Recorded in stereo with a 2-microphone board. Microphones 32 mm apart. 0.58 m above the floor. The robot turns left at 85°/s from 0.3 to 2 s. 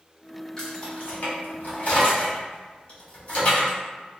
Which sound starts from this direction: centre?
Keys jangling, at 0.6 s.